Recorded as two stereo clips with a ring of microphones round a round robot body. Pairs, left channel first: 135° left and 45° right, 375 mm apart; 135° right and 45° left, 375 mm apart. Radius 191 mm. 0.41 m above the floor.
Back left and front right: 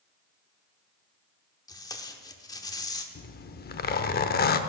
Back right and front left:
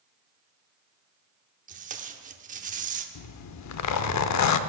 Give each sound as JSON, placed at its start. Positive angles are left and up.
{"t": 1.7, "sound": "tape being pulled", "azimuth_deg": 70, "distance_m": 0.9}
{"t": 3.1, "sound": "a zipper", "azimuth_deg": -165, "distance_m": 0.6}